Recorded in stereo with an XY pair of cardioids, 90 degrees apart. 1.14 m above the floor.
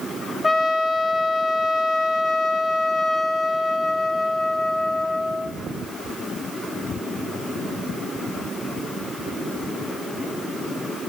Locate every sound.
0.4 s a trumpet: 30° left, 1.4 m